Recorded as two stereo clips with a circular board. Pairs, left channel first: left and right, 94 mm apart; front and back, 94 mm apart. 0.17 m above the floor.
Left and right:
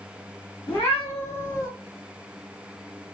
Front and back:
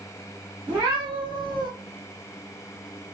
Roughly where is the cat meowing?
Behind left.